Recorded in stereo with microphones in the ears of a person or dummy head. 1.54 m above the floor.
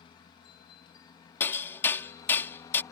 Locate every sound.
0.0 s a helicopter: 20° left (ahead or behind); by 2.9 s 15° left (ahead or behind)
1.4 s hammering: 10° left (ahead or behind)